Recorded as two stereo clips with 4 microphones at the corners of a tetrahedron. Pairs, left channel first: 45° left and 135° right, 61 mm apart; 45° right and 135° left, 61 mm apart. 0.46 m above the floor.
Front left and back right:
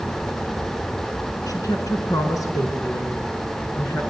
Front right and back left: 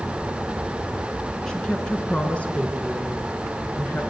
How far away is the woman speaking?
About 5.5 m.